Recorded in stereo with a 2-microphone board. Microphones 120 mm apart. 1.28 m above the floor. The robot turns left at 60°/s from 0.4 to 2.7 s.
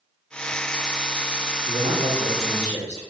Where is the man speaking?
125° right, 1.2 m; by 3.0 s 170° left, 1.2 m.